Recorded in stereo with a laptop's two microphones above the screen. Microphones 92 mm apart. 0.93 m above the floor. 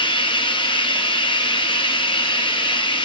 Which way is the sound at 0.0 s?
65° left (ahead or behind).